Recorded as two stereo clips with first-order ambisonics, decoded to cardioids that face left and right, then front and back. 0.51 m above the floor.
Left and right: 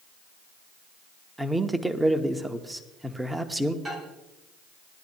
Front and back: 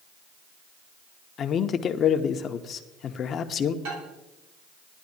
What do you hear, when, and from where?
1.4 s a man speaking: 10° right, 0.7 m
3.9 s a microwave: 175° right, 3 m